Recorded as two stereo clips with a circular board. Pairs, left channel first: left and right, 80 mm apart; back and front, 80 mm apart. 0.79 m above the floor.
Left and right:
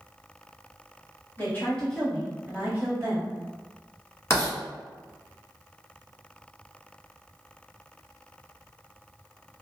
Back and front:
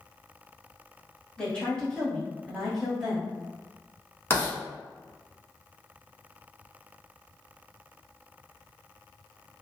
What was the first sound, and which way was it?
A woman speaking, 115° left.